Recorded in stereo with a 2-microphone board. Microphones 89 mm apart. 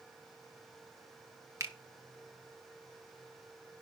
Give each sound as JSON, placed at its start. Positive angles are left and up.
{"t": 1.6, "sound": "a finger snap", "side_deg": -35, "distance_m": 1.0}